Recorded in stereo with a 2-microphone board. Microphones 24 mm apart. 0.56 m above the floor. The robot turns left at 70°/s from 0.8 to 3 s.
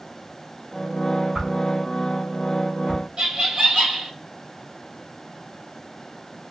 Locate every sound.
1.4 s a whoosh: 20° right (ahead or behind), 2.5 m; by 3.0 s 40° right (ahead or behind), 2.5 m
3.2 s laughter: 35° right (ahead or behind), 1.7 m